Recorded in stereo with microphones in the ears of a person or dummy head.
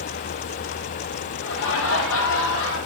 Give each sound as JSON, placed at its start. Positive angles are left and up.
{"t": 1.4, "sound": "laughter", "side_deg": 70, "distance_m": 0.9}